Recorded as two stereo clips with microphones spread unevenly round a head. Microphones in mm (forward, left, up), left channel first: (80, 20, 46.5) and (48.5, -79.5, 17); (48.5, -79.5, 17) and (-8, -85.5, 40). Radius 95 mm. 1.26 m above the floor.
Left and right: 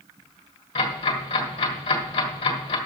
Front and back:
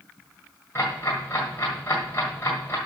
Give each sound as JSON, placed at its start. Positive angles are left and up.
{"t": 0.8, "sound": "ticking", "azimuth_deg": 95, "distance_m": 1.7}